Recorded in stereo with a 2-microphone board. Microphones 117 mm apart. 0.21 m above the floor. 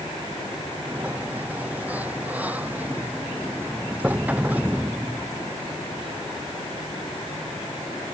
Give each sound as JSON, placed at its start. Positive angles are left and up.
{"t": 0.9, "sound": "a sliding door", "side_deg": -15}